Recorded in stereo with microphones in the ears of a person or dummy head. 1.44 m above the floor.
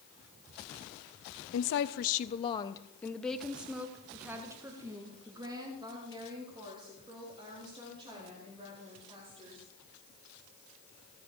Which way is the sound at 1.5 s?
75° left (ahead or behind).